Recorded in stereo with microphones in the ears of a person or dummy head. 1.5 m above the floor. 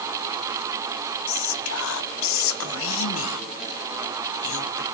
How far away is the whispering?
About 0.8 m.